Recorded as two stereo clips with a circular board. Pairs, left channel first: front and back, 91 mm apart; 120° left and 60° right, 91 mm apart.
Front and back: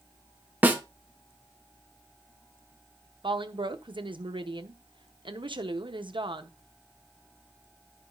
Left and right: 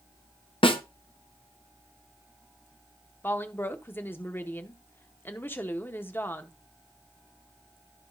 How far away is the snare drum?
About 0.9 m.